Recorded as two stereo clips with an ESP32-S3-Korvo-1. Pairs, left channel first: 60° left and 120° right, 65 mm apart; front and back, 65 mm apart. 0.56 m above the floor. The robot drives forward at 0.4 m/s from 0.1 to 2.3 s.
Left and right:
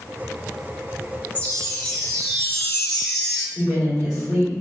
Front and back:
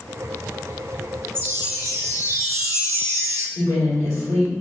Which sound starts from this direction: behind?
A woman speaking, at 3.5 s.